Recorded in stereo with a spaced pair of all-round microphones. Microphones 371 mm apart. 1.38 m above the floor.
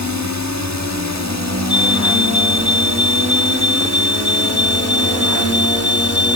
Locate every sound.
0.0 s a drone: 50° right (ahead or behind); by 6.4 s 40° right (ahead or behind)
1.7 s a fire alarm: 35° right (ahead or behind)